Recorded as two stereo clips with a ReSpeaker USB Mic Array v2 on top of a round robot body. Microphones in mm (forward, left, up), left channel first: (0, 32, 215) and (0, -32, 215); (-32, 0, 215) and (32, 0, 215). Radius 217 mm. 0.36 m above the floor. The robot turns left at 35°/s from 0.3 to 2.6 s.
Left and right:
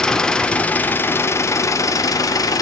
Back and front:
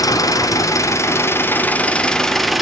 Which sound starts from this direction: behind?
An engine running, at 0.0 s.